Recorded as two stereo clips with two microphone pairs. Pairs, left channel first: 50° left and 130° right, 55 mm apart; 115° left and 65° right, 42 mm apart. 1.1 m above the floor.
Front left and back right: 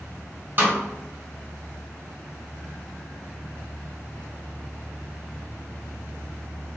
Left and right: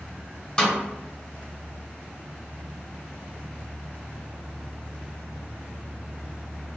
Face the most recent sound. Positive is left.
turn(degrees=-175)